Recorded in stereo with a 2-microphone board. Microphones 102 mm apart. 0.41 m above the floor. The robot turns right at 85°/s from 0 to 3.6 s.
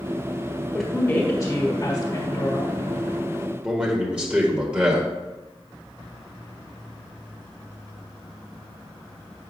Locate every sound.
0.7 s a woman speaking: 5° right, 1.6 m; by 2.8 s 170° left, 1.6 m
3.6 s a man speaking: 10° right (ahead or behind), 1.5 m